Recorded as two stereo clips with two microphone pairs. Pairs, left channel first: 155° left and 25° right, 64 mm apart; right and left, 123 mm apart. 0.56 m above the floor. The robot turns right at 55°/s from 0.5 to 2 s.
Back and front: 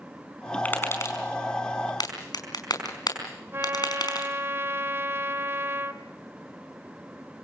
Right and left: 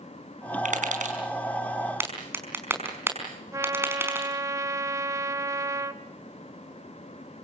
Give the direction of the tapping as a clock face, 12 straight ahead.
9 o'clock.